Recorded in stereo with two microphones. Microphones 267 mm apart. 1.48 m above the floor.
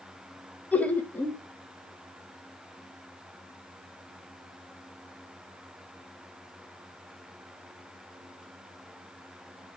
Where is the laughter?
5° left (ahead or behind), 1.4 m.